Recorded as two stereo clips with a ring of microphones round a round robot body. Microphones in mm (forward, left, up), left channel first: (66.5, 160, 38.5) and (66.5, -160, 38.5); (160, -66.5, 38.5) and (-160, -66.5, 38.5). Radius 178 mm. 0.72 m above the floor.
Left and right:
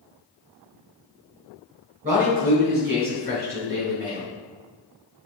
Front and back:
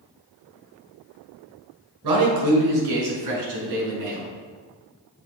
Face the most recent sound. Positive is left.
turn(degrees=-150)